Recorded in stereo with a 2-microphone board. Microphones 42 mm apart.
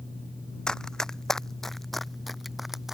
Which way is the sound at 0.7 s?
15° left (ahead or behind).